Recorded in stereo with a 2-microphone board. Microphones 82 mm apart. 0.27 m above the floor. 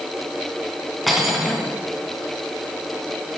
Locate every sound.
1.1 s cutlery clinking: centre (ahead or behind), 1.7 m